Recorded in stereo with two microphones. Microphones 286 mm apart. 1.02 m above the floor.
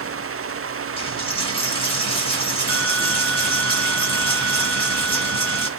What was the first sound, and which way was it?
A dropped coin, 20° left (ahead or behind).